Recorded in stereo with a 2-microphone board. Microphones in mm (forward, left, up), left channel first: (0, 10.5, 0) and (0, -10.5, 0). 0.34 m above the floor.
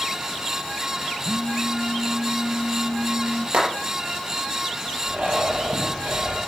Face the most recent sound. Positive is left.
turn(degrees=-75)  # may be behind; listen again after turning